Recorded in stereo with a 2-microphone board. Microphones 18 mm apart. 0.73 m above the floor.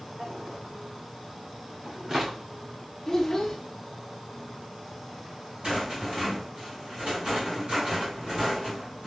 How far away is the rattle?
About 3 m.